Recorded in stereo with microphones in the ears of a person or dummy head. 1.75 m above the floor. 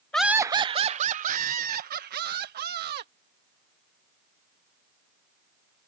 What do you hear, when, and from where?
0.1 s laughter: 5° left (ahead or behind); by 3.1 s 60° right (ahead or behind)